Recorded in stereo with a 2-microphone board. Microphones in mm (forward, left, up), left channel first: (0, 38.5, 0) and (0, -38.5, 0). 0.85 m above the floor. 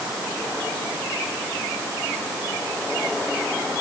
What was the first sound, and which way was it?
Only background noise.